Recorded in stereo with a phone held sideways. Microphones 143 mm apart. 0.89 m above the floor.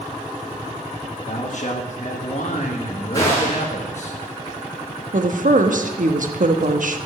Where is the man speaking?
55° left (ahead or behind), 1.2 m.